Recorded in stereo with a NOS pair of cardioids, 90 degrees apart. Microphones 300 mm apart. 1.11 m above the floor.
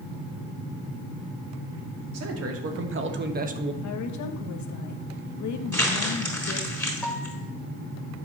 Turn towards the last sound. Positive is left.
turn(degrees=5)